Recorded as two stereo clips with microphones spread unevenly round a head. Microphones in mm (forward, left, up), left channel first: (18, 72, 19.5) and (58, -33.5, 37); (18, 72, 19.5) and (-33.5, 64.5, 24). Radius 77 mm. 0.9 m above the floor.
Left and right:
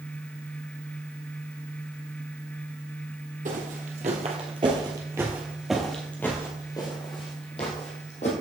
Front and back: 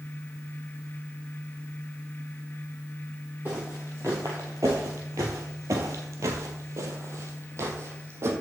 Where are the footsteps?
95° right, 2 m; by 8.3 s 160° left, 2.5 m.